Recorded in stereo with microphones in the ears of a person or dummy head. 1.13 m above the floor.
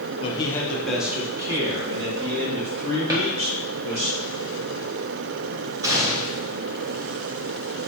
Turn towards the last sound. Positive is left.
turn(degrees=-15)  # may be behind; listen again after turning